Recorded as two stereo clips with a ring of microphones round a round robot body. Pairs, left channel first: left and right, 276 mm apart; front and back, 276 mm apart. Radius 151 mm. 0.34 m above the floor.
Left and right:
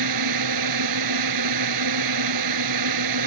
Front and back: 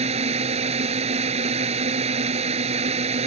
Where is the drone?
110° right.